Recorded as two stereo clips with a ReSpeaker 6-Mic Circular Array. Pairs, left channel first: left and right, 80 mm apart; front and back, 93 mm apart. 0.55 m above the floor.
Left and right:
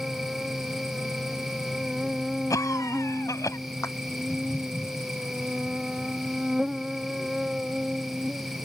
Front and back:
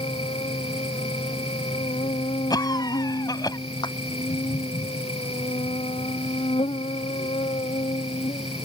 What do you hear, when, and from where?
0.0 s an insect: 5° right
2.5 s a cough: 45° left
3.8 s a clap: 40° left